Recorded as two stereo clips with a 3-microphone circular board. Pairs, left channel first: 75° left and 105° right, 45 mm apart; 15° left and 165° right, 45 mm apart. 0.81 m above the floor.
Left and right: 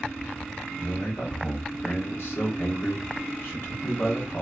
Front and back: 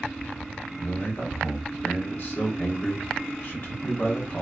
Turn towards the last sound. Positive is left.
turn(degrees=55)